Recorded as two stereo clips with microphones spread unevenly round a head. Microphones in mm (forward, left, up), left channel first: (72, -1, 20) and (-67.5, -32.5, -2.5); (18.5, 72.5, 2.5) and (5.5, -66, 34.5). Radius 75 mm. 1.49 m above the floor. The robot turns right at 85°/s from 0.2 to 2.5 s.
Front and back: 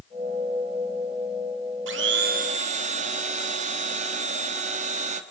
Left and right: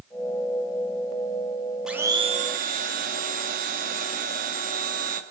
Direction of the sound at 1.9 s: 175° right.